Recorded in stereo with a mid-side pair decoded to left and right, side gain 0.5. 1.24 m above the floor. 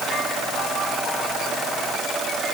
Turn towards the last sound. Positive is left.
No sound to turn to.